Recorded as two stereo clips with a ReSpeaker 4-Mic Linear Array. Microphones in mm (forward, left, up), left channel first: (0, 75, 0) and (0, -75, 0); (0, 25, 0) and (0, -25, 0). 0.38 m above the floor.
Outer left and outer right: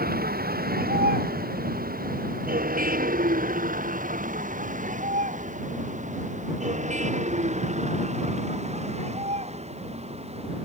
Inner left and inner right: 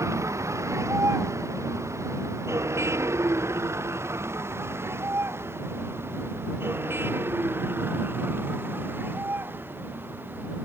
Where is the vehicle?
90° right; by 10.7 s 45° right (ahead or behind).